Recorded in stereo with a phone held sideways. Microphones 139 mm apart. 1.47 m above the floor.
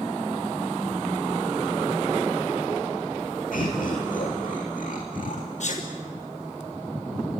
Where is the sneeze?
60° left (ahead or behind), 1.2 m.